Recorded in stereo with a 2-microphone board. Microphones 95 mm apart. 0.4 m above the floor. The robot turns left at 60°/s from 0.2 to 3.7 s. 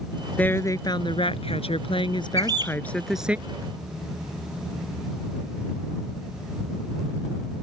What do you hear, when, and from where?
0.4 s a woman speaking: 165° left; by 3.4 s 15° right
2.4 s a bird: 35° right (ahead or behind); by 2.8 s 55° right (ahead or behind)